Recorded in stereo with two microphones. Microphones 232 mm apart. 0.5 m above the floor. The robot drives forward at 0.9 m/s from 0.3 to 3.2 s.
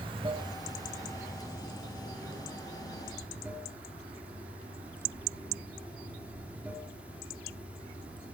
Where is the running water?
20° right (ahead or behind), 1.0 m; by 8.3 s 5° right (ahead or behind), 3.5 m.